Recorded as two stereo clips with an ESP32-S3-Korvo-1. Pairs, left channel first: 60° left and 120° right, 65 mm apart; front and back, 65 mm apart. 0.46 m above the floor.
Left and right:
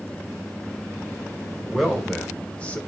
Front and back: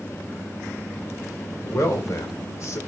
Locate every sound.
1.6 s a man speaking: 30° right, 2 m; by 2.8 s 5° left, 1.6 m